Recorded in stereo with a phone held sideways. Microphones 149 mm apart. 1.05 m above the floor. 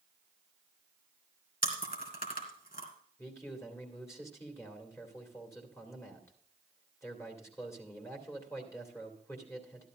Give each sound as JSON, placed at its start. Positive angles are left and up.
{"t": 1.6, "sound": "chewing", "side_deg": 75, "distance_m": 3.0}
{"t": 3.2, "sound": "a man speaking", "side_deg": 20, "distance_m": 2.5}